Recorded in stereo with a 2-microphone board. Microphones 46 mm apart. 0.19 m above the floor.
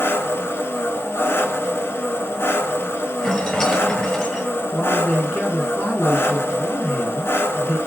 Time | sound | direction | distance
0.0 | an engine running | 65° left (ahead or behind) | 0.8 m
3.2 | a rattle | 15° left (ahead or behind) | 0.8 m
4.7 | a man speaking | 45° left (ahead or behind) | 2 m